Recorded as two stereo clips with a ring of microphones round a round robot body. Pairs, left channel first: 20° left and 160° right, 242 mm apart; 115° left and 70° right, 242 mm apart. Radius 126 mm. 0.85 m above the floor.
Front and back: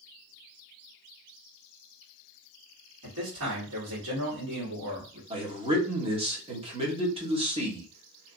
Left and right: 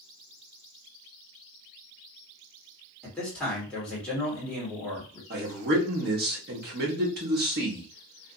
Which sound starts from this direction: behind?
A man speaking, at 3.0 s.